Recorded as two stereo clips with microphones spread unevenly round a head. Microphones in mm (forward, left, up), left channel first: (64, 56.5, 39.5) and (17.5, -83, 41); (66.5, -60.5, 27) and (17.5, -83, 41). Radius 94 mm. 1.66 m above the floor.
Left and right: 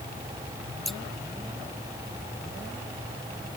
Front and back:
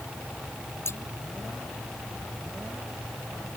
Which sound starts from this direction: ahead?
Scissors, at 0.8 s.